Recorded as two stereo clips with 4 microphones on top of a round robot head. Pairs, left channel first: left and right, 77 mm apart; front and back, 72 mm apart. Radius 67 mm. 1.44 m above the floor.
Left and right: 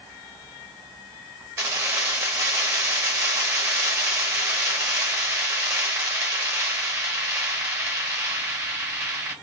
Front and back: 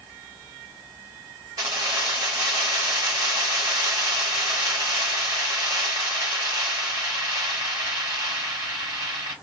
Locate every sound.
1.6 s keys jangling: 125° right, 0.8 m